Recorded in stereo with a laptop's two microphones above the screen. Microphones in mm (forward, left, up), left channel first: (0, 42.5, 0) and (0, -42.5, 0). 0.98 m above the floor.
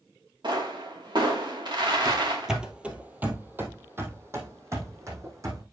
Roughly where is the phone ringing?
I don't hear a phone ringing.